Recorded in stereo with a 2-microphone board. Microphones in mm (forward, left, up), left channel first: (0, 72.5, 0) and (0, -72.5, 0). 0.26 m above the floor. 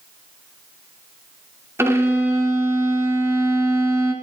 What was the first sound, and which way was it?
A violin, 15° right (ahead or behind).